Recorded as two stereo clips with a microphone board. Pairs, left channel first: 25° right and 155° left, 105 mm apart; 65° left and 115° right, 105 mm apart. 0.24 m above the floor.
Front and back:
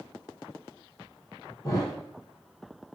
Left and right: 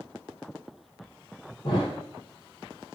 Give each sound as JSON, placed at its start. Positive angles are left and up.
{"t": 1.6, "sound": "a thud", "azimuth_deg": 35, "distance_m": 2.0}